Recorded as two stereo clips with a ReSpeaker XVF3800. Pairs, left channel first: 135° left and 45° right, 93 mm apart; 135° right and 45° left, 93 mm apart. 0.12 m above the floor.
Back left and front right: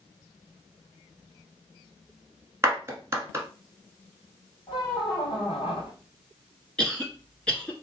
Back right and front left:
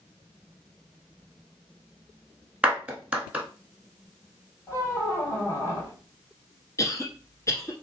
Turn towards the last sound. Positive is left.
turn(degrees=-150)